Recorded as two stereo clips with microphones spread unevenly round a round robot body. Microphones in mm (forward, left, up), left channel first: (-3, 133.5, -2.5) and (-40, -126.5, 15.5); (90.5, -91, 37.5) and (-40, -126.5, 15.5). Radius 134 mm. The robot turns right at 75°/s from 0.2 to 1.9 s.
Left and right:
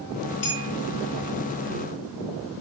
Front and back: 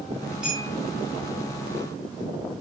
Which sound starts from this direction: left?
A clink, at 0.4 s.